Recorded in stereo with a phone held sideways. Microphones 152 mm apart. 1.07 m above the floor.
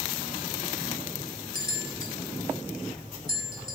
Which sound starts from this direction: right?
A bell, at 1.6 s.